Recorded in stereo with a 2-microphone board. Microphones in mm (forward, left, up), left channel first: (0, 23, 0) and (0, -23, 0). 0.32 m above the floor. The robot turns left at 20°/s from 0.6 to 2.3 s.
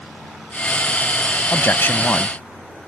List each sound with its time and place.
1.5 s a man speaking: 55° left (ahead or behind); by 2.4 s 50° left (ahead or behind)